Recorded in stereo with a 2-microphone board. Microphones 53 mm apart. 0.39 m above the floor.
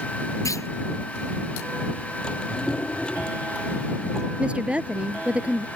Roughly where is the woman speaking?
Right.